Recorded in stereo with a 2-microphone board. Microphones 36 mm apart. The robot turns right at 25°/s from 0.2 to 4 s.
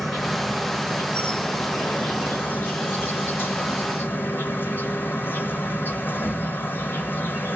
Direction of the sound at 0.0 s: Straight ahead.